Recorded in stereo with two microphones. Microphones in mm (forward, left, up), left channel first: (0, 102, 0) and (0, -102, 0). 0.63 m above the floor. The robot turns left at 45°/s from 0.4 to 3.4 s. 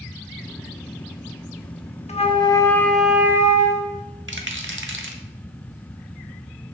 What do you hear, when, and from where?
2.1 s a flute: 40° left, 0.8 m; by 4.0 s 15° right, 0.8 m
4.3 s a rattle: 70° right (ahead or behind), 0.9 m